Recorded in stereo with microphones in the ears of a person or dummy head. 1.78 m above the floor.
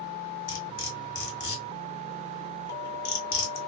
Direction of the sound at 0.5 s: 55° left (ahead or behind).